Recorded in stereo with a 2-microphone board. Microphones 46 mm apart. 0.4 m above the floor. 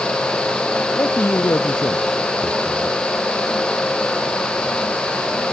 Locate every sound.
0.9 s a man speaking: 75° left (ahead or behind)